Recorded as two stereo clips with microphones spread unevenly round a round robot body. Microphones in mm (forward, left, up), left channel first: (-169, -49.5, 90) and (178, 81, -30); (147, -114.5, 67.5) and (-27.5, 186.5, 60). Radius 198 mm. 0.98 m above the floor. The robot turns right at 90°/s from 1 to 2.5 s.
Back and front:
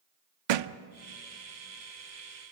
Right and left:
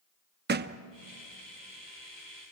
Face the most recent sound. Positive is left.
turn(degrees=-170)